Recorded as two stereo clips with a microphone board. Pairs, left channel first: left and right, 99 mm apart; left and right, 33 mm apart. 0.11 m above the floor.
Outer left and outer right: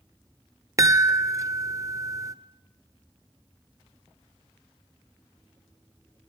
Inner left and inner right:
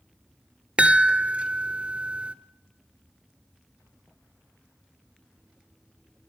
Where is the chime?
30° right (ahead or behind), 0.5 m.